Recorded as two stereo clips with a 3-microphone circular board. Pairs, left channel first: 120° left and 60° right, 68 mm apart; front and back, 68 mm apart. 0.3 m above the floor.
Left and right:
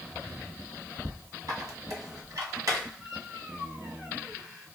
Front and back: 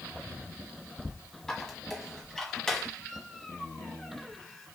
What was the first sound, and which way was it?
A squeak, 85° right.